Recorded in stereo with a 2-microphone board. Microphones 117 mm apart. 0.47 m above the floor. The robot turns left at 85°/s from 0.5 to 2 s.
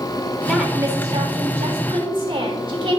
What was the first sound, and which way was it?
A woman speaking, straight ahead.